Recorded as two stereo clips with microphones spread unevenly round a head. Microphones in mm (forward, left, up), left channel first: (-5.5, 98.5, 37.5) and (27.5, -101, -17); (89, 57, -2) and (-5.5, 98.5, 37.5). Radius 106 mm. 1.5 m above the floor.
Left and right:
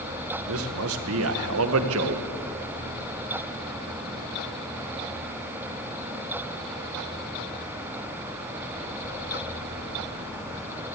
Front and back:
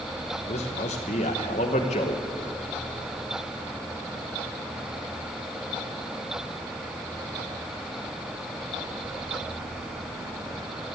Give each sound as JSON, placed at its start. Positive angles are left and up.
{"t": 0.5, "sound": "a man speaking", "azimuth_deg": -65, "distance_m": 1.1}